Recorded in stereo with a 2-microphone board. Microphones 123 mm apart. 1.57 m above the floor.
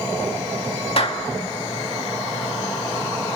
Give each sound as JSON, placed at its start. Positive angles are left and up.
{"t": 1.0, "sound": "a clap", "side_deg": 55, "distance_m": 2.0}